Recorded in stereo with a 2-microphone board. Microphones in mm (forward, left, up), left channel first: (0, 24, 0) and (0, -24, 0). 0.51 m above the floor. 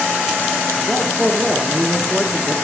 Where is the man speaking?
5° right (ahead or behind), 1.0 m.